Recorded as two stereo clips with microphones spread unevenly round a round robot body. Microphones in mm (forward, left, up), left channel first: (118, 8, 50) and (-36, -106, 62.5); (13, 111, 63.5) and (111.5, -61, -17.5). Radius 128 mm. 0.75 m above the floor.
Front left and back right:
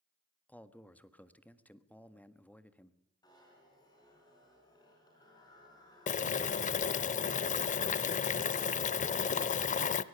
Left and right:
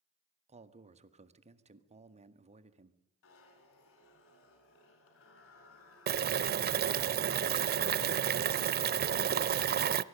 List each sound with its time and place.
0.5 s a man speaking: 40° right, 1.6 m
3.2 s a zipper: 110° left, 4.5 m
6.1 s boiling: 10° right, 0.6 m